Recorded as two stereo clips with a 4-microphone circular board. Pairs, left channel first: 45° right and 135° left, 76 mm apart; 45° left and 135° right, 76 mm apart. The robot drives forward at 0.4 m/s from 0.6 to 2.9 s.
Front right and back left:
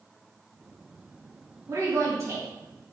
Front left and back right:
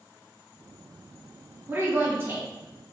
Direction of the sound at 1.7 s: 170° left.